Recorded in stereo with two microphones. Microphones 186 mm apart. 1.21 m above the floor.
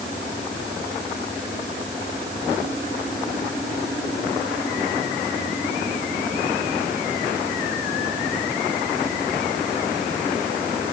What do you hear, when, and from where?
Only background noise.